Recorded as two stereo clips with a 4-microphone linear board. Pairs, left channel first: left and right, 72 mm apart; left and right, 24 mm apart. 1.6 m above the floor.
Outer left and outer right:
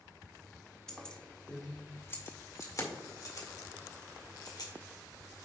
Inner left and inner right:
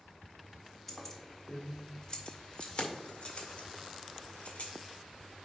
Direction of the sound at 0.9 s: 10° left (ahead or behind).